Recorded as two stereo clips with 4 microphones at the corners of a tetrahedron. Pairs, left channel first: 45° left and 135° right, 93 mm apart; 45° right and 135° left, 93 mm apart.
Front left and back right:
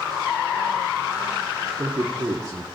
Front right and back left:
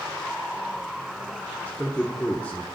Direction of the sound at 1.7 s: 110° right.